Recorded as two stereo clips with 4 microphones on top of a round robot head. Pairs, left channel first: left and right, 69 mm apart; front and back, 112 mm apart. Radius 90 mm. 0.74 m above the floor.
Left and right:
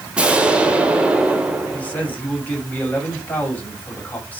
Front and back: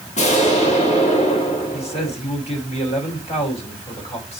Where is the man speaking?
25° left, 5.5 m.